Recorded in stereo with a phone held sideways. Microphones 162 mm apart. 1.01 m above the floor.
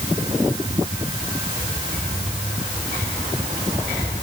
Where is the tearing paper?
I don't hear tearing paper.